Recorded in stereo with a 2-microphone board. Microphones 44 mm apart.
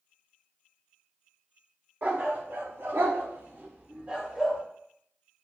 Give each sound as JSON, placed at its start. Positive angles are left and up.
{"t": 2.0, "sound": "a dog barking", "side_deg": -50, "distance_m": 2.5}